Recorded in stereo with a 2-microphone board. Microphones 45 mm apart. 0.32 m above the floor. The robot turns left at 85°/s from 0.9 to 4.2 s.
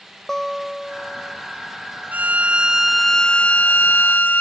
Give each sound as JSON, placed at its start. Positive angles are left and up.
{"t": 0.3, "sound": "a guitar", "azimuth_deg": 15}
{"t": 2.1, "sound": "a violin", "azimuth_deg": -105}